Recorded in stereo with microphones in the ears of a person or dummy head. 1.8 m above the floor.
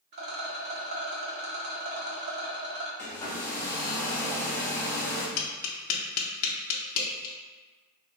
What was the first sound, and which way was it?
A rattle, 50° right (ahead or behind).